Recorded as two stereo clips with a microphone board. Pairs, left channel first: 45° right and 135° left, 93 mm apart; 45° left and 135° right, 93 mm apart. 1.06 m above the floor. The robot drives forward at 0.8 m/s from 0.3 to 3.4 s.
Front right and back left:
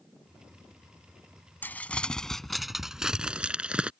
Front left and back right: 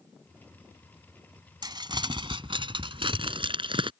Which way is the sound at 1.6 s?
110° right.